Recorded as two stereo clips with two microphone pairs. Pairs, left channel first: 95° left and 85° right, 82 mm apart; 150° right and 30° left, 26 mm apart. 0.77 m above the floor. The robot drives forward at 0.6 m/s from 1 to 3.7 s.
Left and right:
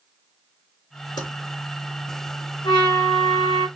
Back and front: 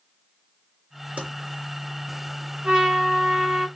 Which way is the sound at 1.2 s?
65° left.